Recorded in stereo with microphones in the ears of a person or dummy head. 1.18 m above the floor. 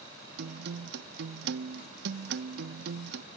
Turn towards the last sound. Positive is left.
turn(degrees=-60)  # may be behind; listen again after turning